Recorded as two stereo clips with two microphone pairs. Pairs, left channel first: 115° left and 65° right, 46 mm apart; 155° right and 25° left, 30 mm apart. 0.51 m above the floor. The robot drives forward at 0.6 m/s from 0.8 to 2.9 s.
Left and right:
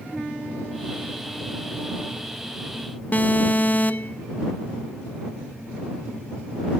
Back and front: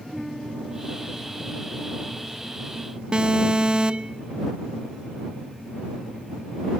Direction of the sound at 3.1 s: 80° left.